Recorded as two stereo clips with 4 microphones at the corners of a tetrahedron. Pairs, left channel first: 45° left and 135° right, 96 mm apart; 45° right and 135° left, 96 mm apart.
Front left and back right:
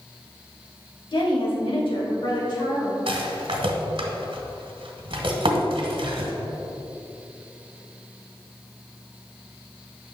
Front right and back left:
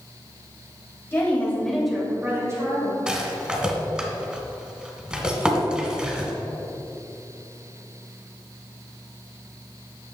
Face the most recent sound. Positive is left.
turn(degrees=-145)